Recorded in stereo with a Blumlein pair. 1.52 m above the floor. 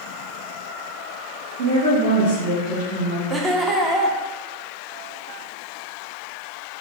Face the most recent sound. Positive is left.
turn(degrees=-10)